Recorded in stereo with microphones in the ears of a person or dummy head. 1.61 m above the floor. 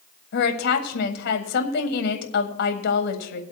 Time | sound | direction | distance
0.3 | a woman speaking | 60° left (ahead or behind) | 1.6 m